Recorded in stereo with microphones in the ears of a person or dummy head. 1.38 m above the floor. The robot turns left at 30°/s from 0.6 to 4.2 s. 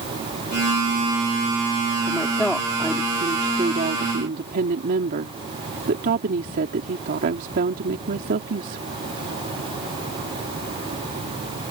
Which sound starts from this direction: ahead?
A woman speaking, at 2.1 s.